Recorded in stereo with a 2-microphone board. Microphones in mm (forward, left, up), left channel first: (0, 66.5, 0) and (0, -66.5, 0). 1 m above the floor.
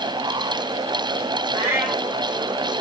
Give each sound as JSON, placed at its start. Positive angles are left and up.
{"t": 1.5, "sound": "a cat meowing", "side_deg": -15, "distance_m": 2.0}